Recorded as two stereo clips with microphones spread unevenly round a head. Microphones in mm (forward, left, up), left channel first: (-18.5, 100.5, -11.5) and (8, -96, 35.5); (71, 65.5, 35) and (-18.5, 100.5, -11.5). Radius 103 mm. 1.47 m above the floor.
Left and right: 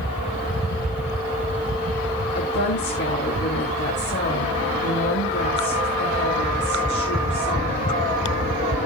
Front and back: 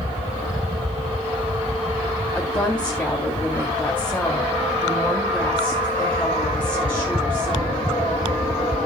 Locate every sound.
2.4 s a woman speaking: 55° left, 4 m